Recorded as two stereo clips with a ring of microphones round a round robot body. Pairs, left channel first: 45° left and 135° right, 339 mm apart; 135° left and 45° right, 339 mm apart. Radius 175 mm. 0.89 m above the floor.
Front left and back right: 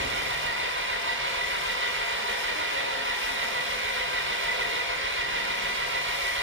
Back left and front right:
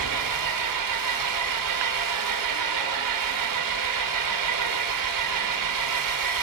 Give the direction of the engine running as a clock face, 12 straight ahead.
3 o'clock.